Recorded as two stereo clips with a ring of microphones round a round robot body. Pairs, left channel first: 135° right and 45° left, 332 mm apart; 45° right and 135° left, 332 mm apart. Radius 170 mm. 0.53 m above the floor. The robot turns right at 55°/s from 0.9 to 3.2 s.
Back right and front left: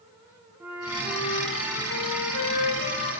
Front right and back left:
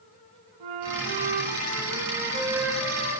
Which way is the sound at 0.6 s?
130° left.